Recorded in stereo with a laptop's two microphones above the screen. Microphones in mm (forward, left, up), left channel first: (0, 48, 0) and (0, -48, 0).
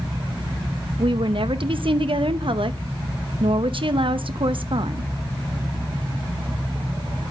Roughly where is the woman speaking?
Right.